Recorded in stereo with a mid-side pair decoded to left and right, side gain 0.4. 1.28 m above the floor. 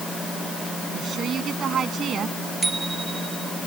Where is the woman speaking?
60° right.